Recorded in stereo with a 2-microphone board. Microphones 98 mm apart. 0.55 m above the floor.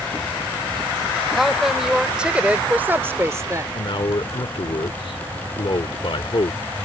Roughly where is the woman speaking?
Centre.